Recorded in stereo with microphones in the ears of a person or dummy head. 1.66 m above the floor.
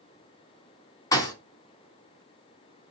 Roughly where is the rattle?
No rattle in this recording.